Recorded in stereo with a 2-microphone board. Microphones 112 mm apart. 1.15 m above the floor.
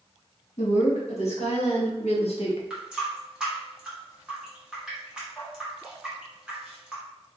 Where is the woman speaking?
75° left (ahead or behind), 1.9 m; by 2.6 s 55° left (ahead or behind), 1.0 m.